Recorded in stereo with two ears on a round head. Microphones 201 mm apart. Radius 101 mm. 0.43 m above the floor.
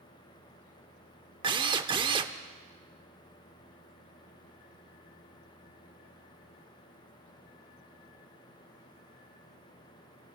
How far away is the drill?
About 0.7 m.